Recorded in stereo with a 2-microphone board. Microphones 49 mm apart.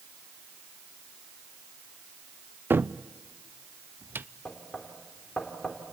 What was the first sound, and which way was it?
A cupboard door, 45° right (ahead or behind).